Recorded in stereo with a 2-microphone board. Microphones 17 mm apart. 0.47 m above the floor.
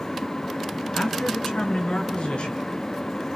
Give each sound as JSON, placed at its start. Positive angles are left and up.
{"t": 0.9, "sound": "a man speaking", "side_deg": 80, "distance_m": 5.0}